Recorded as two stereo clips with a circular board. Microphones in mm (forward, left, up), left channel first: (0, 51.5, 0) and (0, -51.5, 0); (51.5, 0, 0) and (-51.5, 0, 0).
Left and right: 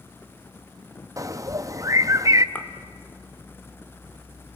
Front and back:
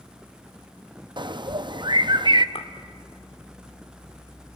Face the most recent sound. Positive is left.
turn(degrees=20)